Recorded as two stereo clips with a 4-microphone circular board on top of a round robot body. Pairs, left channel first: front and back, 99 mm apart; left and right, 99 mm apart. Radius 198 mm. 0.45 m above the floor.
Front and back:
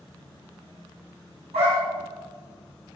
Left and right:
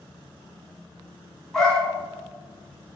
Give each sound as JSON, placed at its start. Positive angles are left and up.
{"t": 1.5, "sound": "a dog barking", "azimuth_deg": 175, "distance_m": 2.5}